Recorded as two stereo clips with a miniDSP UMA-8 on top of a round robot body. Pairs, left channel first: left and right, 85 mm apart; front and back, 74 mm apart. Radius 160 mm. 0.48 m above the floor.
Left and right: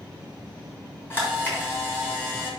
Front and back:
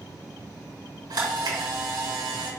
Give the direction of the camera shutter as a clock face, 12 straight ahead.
7 o'clock.